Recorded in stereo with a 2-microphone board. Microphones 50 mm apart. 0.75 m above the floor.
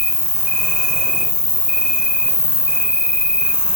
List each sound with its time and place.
0.0 s an insect: 20° left (ahead or behind), 1.1 m